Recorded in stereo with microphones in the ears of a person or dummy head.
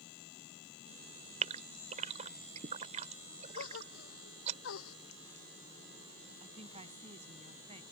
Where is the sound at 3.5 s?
85° left.